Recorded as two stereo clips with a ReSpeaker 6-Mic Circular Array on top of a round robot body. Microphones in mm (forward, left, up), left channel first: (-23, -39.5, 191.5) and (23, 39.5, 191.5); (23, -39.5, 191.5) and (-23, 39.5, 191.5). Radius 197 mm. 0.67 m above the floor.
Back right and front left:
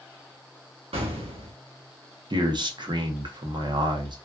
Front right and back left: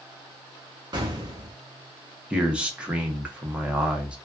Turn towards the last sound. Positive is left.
turn(degrees=45)